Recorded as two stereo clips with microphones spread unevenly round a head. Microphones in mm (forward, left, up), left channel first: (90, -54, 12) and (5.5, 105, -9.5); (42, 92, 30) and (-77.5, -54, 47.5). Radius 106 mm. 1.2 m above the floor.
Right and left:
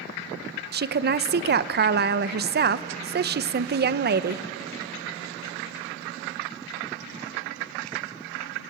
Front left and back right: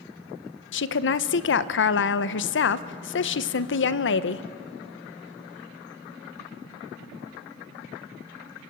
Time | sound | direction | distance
0.7 | a woman speaking | 80° left | 0.7 m